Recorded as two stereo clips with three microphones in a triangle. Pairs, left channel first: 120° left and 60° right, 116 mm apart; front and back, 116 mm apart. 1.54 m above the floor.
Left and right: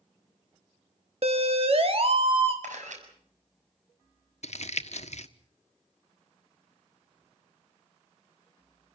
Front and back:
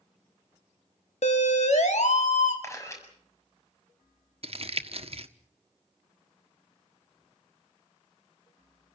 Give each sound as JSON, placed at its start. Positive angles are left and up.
{"t": 1.2, "sound": "a siren", "azimuth_deg": -25, "distance_m": 2.5}
{"t": 2.6, "sound": "a camera shutter", "azimuth_deg": -65, "distance_m": 7.0}
{"t": 4.4, "sound": "crumpling", "azimuth_deg": 145, "distance_m": 1.3}